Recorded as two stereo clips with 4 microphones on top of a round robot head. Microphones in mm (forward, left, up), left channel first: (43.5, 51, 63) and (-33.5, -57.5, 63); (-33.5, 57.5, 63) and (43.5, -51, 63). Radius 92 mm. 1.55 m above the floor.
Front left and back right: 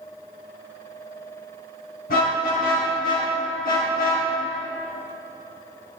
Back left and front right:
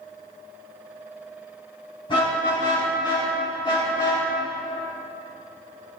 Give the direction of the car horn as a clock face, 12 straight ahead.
10 o'clock.